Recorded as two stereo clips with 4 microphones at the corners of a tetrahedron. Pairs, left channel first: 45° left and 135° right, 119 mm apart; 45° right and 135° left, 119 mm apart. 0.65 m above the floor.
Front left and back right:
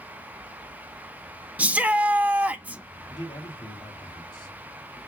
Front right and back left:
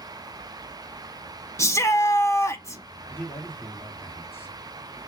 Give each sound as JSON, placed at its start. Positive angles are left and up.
{"t": 1.6, "sound": "a shout", "azimuth_deg": -70, "distance_m": 0.6}
{"t": 3.1, "sound": "a man speaking", "azimuth_deg": 15, "distance_m": 1.5}